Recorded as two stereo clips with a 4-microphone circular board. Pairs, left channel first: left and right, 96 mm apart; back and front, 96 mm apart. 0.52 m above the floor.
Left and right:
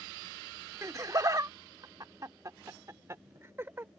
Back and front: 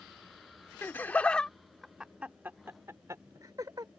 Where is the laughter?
125° right; by 3.9 s 30° right.